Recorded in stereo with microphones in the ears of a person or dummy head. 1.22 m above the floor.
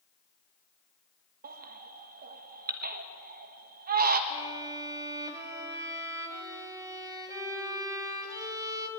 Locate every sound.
1.4 s a baby crying: 55° right (ahead or behind), 1.1 m
4.3 s a violin: 15° right (ahead or behind), 2.5 m